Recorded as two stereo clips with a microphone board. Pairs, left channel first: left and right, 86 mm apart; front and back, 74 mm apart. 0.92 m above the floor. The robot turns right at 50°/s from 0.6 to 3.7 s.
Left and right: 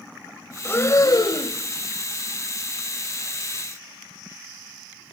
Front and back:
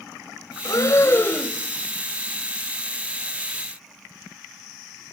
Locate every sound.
0.7 s breathing: 25° left, 1.2 m; by 1.6 s 75° left, 1.2 m